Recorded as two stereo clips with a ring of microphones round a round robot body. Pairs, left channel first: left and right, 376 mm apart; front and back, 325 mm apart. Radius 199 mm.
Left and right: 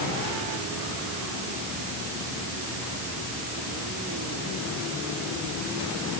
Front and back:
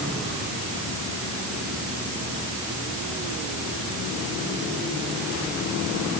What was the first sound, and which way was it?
Only background noise.